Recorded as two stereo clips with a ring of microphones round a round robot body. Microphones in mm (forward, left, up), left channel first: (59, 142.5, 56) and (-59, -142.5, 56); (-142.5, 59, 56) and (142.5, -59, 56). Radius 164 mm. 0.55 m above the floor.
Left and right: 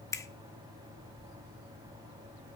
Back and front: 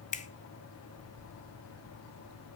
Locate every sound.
0.1 s a finger snap: 135° left, 0.9 m